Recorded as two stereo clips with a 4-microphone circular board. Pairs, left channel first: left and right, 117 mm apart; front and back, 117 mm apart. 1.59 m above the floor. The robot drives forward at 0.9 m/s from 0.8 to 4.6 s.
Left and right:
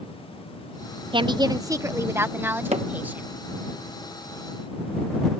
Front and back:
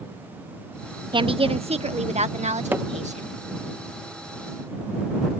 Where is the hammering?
105° right; by 2.9 s 110° right.